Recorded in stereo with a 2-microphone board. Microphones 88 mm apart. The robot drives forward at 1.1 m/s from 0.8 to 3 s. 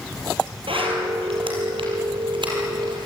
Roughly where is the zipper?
Right.